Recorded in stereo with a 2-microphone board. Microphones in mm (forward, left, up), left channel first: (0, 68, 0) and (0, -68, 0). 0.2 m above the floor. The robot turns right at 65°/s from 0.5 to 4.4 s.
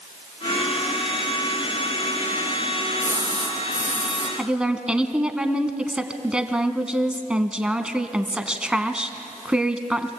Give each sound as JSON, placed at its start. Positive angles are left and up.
{"t": 3.0, "sound": "a splash", "azimuth_deg": 15, "distance_m": 4.0}
{"t": 4.4, "sound": "a woman speaking", "side_deg": -10, "distance_m": 1.5}